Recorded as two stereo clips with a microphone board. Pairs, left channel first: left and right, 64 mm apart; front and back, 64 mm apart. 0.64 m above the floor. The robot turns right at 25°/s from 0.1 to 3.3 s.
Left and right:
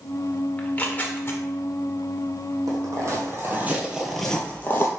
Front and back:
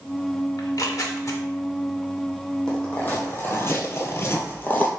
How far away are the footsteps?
About 1.6 m.